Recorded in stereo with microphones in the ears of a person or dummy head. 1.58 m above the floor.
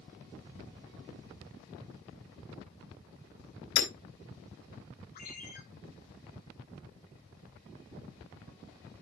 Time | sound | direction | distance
3.8 | hammering | 70° left (ahead or behind) | 3 m
5.2 | a ringtone | 40° left (ahead or behind) | 3 m